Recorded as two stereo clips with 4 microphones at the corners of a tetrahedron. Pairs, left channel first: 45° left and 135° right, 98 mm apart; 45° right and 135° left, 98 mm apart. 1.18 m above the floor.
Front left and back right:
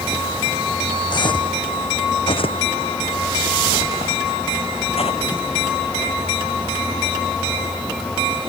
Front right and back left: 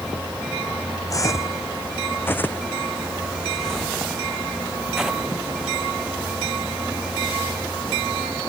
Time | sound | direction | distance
1.1 | footsteps | 10° left | ?